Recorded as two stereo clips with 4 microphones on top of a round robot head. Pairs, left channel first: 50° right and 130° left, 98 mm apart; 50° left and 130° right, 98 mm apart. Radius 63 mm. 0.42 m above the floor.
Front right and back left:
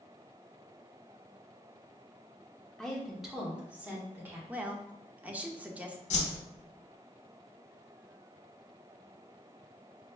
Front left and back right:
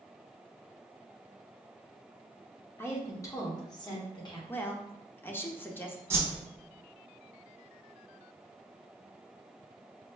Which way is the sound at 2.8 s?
25° left.